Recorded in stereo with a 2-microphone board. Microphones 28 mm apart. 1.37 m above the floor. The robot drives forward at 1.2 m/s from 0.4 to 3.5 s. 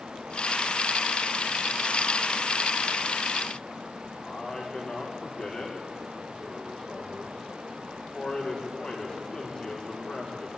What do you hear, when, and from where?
4.2 s a man speaking: 30° left (ahead or behind), 4.5 m